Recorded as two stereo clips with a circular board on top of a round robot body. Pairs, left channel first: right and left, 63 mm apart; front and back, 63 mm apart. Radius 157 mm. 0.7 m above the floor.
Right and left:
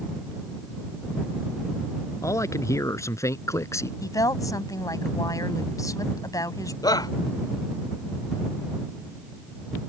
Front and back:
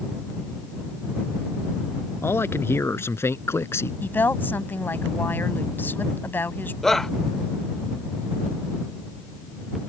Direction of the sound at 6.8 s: 85° right.